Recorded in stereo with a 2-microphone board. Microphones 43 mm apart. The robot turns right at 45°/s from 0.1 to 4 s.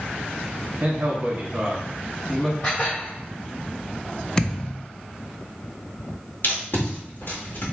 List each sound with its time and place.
0.8 s a man speaking: 80° right, 1.4 m; by 2.5 s straight ahead, 1.4 m
2.6 s dishes clattering: 35° left (ahead or behind), 1.8 m; by 3.2 s 60° left (ahead or behind), 1.8 m
4.4 s a thud: 20° left (ahead or behind), 0.5 m
6.4 s tape being pulled: 55° left (ahead or behind), 2.0 m